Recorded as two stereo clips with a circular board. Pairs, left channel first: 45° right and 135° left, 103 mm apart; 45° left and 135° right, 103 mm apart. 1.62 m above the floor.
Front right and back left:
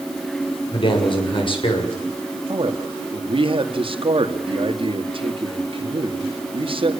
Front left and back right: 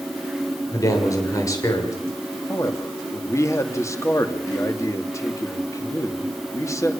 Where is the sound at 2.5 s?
105° left, 2.5 m.